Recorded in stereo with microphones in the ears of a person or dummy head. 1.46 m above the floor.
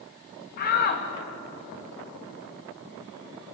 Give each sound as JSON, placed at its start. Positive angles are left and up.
{"t": 0.6, "sound": "a shout", "side_deg": 45, "distance_m": 2.0}